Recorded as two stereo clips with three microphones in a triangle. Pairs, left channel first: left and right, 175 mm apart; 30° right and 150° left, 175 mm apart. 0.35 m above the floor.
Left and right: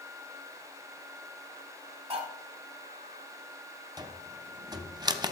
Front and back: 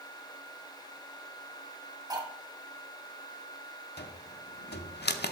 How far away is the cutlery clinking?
About 1.2 m.